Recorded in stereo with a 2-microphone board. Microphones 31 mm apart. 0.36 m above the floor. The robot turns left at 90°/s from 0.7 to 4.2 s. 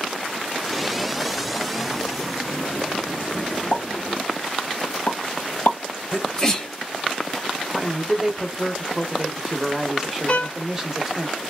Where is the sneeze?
20° left (ahead or behind), 1.3 m.